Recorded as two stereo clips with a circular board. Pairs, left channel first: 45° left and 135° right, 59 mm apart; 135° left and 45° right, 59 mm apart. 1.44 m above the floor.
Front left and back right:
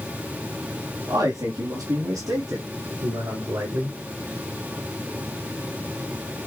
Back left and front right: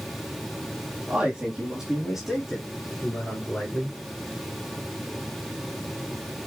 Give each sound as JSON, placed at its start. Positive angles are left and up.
{"t": 1.1, "sound": "a man speaking", "azimuth_deg": -115, "distance_m": 3.5}